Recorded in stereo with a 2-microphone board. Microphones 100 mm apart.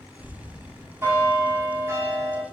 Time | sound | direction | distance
0.2 | a bell | 25° right (ahead or behind) | 0.9 m